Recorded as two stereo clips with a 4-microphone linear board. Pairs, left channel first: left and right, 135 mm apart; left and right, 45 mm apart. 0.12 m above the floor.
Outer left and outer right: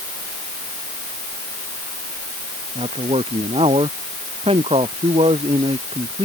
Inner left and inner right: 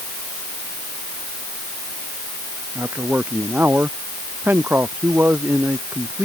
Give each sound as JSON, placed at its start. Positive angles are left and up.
{"t": 2.8, "sound": "a man speaking", "side_deg": -45}